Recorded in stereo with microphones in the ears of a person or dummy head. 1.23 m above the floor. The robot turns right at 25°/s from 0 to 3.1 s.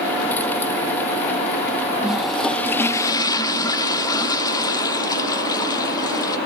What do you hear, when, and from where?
2.0 s a toilet flushing: 5° right (ahead or behind), 0.5 m; by 6.4 s 20° left (ahead or behind), 0.5 m